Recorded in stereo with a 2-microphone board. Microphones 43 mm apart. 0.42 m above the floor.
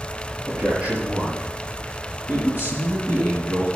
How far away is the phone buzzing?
No phone buzzing in this recording.